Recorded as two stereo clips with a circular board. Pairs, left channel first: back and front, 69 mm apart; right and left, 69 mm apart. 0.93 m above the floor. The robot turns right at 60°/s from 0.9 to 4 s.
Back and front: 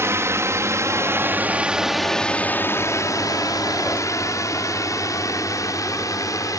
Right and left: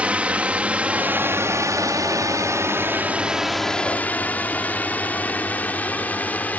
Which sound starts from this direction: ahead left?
A drone, at 0.0 s.